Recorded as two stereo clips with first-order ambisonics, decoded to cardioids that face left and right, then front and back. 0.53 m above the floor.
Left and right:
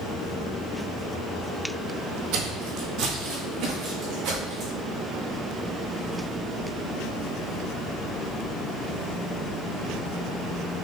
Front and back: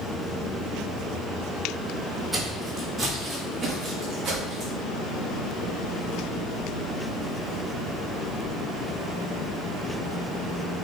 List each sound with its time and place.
2.3 s footsteps: 90° right, 1.0 m; by 4.7 s 110° right, 2.5 m